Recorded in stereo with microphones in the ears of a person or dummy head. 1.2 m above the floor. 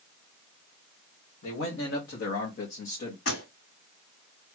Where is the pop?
75° left (ahead or behind), 2 m.